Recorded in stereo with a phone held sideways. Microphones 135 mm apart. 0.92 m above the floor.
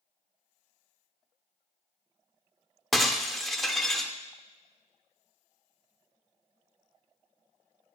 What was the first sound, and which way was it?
Breaking glass, centre (ahead or behind).